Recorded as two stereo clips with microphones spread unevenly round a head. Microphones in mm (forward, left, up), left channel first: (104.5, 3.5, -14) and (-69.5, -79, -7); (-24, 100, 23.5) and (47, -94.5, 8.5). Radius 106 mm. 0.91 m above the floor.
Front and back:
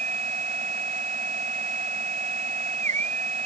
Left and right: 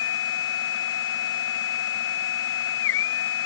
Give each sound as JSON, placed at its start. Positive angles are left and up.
{"t": 0.0, "sound": "a machine running", "azimuth_deg": 145}